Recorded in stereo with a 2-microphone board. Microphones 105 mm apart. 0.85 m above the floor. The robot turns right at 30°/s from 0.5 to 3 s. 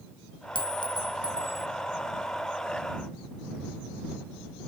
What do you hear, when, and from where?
0.6 s a clink: 125° left; by 1.7 s 160° left